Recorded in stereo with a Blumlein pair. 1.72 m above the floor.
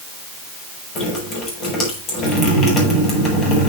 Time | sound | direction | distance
0.9 | dripping | 30° left | 7 m